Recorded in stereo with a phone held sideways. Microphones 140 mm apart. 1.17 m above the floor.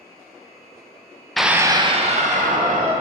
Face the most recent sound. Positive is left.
turn(degrees=-65)  # may be behind; listen again after turning